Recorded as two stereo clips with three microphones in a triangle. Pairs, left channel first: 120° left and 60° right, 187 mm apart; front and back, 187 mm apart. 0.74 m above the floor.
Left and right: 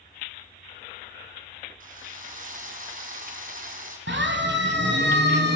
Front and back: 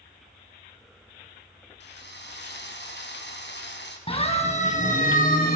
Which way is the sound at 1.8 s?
15° right.